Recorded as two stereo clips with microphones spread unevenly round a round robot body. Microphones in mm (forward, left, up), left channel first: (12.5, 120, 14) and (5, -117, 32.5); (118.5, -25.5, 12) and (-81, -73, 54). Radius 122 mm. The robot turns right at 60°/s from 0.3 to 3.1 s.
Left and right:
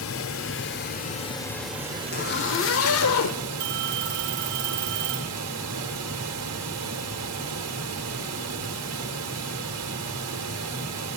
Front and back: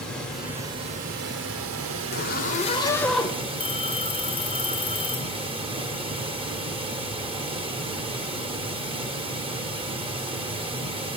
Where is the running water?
95° left, 1.4 m; by 11.2 s 100° right, 1.4 m.